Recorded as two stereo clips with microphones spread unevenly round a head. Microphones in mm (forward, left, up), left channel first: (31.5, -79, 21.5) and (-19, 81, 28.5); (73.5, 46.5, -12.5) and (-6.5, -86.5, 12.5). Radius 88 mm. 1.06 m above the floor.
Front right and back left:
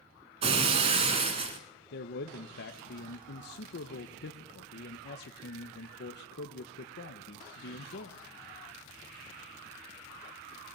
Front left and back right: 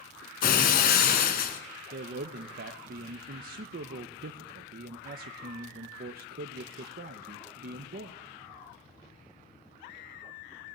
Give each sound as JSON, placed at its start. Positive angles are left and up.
{"t": 0.4, "sound": "breaking glass", "azimuth_deg": 65, "distance_m": 1.3}
{"t": 1.9, "sound": "a man speaking", "azimuth_deg": -90, "distance_m": 0.8}